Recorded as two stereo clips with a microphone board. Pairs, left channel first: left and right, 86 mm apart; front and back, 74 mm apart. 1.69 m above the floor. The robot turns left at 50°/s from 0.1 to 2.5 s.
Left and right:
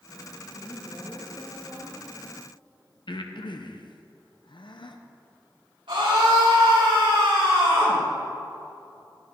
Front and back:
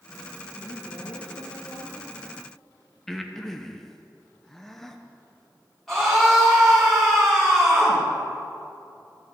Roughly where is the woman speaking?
Ahead left.